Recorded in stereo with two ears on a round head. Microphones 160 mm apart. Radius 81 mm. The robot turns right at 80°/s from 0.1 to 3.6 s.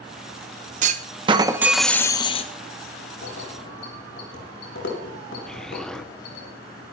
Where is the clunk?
80° right, 0.7 m; by 2.5 s 55° left, 0.7 m.